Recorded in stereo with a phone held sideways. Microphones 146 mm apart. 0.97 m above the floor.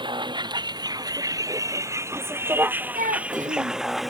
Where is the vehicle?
30° right (ahead or behind); by 4.1 s centre (ahead or behind).